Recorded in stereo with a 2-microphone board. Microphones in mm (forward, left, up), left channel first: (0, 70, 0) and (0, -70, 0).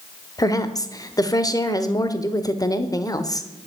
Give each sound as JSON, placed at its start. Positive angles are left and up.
{"t": 0.4, "sound": "a woman speaking", "side_deg": 25, "distance_m": 0.9}